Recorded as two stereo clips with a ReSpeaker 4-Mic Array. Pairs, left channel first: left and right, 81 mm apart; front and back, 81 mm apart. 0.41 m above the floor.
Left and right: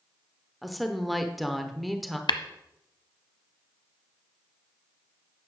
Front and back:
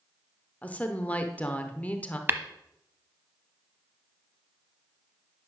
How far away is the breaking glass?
No breaking glass in this recording.